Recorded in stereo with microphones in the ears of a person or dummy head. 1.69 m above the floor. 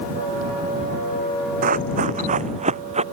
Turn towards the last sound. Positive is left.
turn(degrees=-35)  # may be behind; listen again after turning